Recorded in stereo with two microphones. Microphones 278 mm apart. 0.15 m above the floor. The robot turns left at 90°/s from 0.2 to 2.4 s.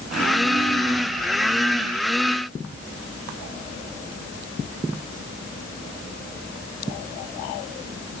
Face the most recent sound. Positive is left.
No sound to turn to.